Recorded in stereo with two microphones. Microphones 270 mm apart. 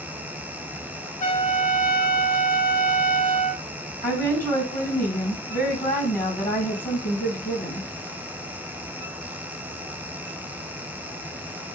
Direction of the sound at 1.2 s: 30° left (ahead or behind).